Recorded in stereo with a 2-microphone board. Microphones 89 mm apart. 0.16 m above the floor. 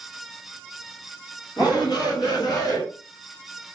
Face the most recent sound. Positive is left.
turn(degrees=45)  # may be behind; listen again after turning